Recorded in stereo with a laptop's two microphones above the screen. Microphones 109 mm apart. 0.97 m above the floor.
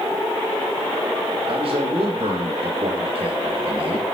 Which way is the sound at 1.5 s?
55° right (ahead or behind).